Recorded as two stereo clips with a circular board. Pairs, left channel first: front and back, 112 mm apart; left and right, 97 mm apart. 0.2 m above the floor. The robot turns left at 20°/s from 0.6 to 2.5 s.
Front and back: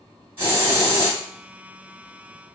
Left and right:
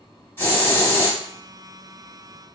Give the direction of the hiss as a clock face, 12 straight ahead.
8 o'clock.